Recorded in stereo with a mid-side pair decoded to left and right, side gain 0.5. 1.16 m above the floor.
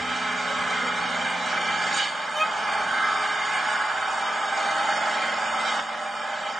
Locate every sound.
0.0 s an engine running: 30° right, 2.5 m
2.3 s a violin: 10° right, 3 m